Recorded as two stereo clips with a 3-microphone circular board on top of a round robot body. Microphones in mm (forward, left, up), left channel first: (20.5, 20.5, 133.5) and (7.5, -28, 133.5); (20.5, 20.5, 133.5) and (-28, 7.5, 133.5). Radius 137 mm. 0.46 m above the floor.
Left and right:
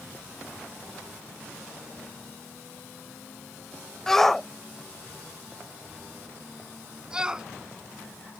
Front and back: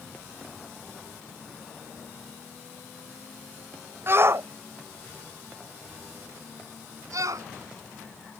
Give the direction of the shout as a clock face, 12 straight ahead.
7 o'clock.